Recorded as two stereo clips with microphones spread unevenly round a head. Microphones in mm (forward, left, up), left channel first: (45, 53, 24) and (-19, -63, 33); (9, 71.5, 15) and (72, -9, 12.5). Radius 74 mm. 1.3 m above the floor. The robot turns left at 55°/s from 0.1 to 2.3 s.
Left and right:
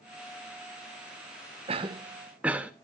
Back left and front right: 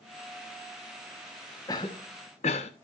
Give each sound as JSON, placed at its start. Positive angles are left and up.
{"t": 1.7, "sound": "a cough", "azimuth_deg": -165, "distance_m": 1.3}